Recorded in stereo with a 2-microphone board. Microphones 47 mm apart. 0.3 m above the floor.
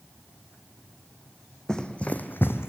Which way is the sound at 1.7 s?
15° left (ahead or behind).